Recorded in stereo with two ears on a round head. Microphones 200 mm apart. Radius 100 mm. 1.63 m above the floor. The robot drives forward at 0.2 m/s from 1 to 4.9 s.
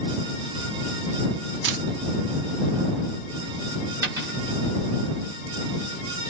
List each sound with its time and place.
1.6 s a camera shutter: 55° right (ahead or behind), 0.7 m; by 1.8 s 50° right (ahead or behind), 0.7 m
4.0 s a dropped coin: 15° right (ahead or behind), 1.2 m